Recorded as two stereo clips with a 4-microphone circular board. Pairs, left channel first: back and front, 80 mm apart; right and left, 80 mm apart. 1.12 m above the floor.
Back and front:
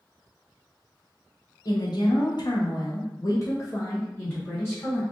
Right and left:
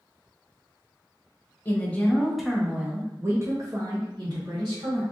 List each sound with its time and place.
1.6 s a woman speaking: 155° right, 1.0 m; by 5.0 s 110° left, 1.7 m